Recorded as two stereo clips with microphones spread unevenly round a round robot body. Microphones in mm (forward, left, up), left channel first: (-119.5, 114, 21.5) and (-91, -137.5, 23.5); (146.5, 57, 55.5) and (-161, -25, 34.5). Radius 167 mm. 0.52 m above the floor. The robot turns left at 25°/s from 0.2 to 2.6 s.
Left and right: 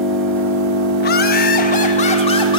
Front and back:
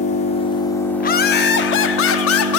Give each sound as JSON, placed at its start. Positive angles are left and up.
{"t": 0.0, "sound": "an engine running", "azimuth_deg": -55, "distance_m": 0.9}
{"t": 1.0, "sound": "laughter", "azimuth_deg": 70, "distance_m": 0.8}